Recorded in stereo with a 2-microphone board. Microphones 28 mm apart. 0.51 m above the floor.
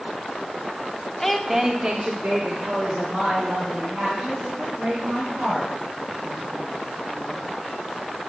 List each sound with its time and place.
1.2 s a woman speaking: 10° left (ahead or behind), 1.2 m; by 7.4 s 65° right (ahead or behind), 9.5 m